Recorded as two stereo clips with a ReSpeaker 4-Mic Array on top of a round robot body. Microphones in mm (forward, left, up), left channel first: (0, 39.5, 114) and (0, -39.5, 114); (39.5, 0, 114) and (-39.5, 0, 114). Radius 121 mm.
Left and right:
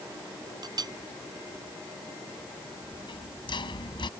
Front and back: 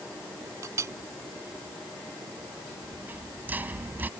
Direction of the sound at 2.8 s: 110° left.